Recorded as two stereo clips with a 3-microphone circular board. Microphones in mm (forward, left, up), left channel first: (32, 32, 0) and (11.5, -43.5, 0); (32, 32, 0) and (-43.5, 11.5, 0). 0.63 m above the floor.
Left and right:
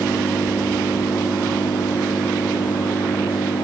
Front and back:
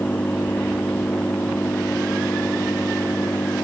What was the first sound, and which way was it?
An engine running, 80° left.